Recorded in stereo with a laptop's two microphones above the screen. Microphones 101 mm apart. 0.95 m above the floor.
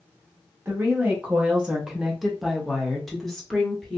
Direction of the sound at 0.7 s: 20° right (ahead or behind).